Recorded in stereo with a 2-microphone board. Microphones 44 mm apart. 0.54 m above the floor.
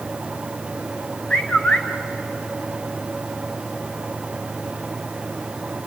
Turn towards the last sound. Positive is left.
turn(degrees=25)  # may be behind; listen again after turning